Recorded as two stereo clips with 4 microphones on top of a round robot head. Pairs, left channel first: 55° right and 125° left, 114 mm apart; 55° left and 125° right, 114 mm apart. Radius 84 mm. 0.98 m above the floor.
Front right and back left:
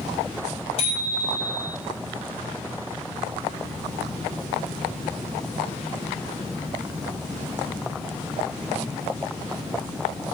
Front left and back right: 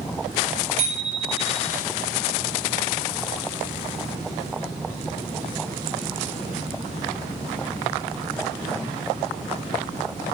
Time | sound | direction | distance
0.8 | a bicycle bell | 100° right | 5 m